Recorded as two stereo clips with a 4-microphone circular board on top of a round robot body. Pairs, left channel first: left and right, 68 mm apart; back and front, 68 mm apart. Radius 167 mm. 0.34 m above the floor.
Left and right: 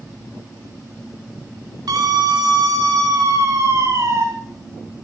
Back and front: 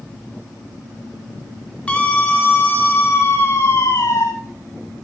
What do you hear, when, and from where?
1.9 s a scream: 110° right, 5 m; by 4.2 s 140° right, 5 m